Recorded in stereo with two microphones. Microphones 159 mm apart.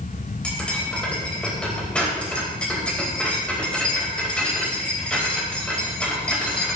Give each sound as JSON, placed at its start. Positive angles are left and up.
{"t": 0.4, "sound": "cutlery clinking", "side_deg": 5, "distance_m": 4.0}